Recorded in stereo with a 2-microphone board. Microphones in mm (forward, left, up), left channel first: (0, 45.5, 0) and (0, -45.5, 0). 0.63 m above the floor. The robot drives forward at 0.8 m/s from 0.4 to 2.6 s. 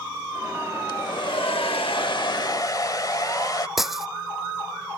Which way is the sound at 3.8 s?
Centre (ahead or behind).